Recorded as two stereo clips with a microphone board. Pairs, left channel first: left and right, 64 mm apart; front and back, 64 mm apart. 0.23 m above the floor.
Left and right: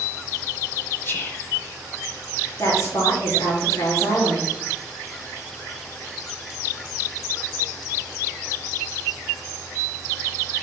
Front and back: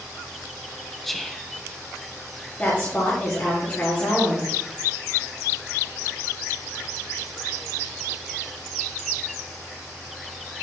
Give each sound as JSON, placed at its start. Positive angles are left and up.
{"t": 1.0, "sound": "whispering", "azimuth_deg": 85, "distance_m": 1.2}
{"t": 2.6, "sound": "a woman speaking", "azimuth_deg": 60, "distance_m": 4.5}